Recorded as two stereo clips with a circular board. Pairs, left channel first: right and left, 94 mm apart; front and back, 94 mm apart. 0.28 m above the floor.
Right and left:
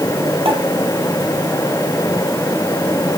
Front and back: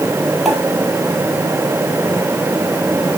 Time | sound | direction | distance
0.5 | a pop | 90° left | 3.5 m